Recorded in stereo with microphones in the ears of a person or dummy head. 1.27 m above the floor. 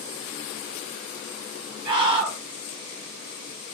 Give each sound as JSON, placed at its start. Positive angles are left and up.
{"t": 1.9, "sound": "a scream", "side_deg": -20, "distance_m": 1.1}